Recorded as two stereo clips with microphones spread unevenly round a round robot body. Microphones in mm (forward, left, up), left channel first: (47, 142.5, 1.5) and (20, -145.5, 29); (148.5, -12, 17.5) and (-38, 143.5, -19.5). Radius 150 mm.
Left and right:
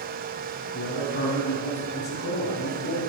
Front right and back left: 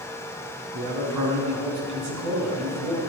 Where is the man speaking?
145° left, 5.5 m.